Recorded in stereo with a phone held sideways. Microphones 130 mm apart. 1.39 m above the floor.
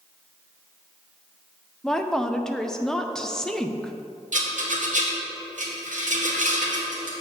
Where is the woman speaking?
5° left (ahead or behind), 0.6 m.